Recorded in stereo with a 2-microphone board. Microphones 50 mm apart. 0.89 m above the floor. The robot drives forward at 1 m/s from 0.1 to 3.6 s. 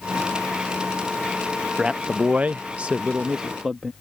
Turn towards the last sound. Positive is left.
turn(degrees=-10)  # may be behind; listen again after turning